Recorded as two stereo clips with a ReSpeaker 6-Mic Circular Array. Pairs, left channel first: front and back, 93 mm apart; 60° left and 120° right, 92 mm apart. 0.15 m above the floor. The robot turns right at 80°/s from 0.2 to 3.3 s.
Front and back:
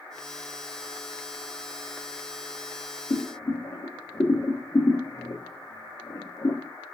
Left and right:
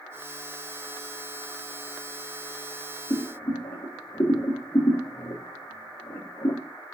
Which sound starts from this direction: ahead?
Boiling, at 3.1 s.